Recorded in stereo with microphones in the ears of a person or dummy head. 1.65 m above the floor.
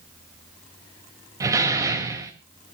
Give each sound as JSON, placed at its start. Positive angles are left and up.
{"t": 1.4, "sound": "a door slam", "side_deg": -20, "distance_m": 2.0}